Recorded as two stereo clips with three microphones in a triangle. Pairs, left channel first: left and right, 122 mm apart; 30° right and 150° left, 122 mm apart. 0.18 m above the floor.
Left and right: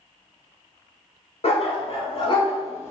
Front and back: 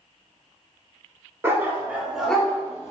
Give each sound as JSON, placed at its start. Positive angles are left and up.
{"t": 1.4, "sound": "a dog barking", "azimuth_deg": 85, "distance_m": 1.1}